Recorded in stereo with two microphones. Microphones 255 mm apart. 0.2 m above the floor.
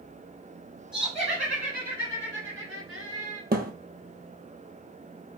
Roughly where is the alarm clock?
No alarm clock in this recording.